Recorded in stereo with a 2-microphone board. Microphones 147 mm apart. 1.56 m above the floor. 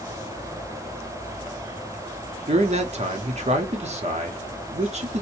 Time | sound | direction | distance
2.5 | a man speaking | 50° right (ahead or behind) | 0.9 m